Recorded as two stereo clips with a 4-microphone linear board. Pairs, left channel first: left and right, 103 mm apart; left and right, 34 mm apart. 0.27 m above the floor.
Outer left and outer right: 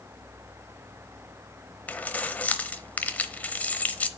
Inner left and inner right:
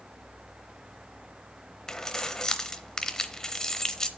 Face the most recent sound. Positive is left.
turn(degrees=15)  # may be behind; listen again after turning